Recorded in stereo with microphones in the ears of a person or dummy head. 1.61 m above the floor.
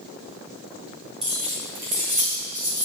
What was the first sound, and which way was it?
Keys jangling, 35° right (ahead or behind).